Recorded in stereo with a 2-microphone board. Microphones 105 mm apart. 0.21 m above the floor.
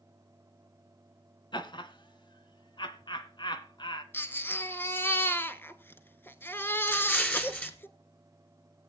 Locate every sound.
1.5 s laughter: 50° left (ahead or behind), 1.7 m
4.1 s a baby crying: 20° left (ahead or behind), 0.8 m
6.9 s an explosion: 15° left (ahead or behind), 1.7 m